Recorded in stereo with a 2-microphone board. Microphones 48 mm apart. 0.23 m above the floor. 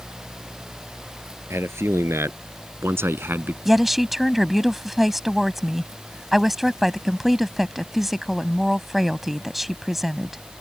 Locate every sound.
1.5 s a man speaking: 65° right (ahead or behind); by 3.5 s 45° right (ahead or behind)
3.6 s a woman speaking: 5° right (ahead or behind)